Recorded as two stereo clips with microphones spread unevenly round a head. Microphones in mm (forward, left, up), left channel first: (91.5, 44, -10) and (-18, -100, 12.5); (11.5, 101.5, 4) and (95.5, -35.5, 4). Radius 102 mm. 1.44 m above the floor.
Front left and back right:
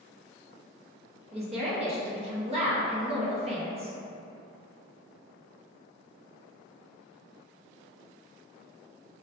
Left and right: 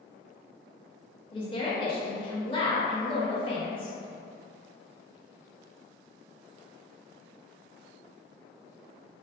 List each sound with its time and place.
1.3 s a woman speaking: 175° right, 0.6 m